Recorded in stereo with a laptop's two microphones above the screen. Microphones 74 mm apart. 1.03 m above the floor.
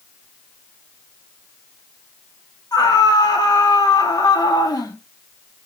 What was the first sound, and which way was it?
A scream, 70° left (ahead or behind).